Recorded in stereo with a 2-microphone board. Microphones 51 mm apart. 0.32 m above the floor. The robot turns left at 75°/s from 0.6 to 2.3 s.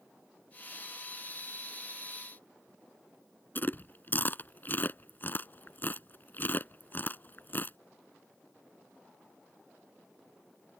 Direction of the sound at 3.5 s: 40° left (ahead or behind).